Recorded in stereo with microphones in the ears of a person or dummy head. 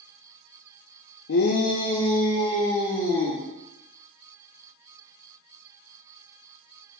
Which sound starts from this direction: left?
A shout, at 1.3 s.